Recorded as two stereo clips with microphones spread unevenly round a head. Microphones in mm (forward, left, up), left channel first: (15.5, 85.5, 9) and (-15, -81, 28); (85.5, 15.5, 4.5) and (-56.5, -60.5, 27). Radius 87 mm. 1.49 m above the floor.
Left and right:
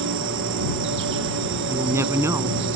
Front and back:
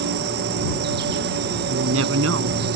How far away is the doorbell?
No doorbell in this recording.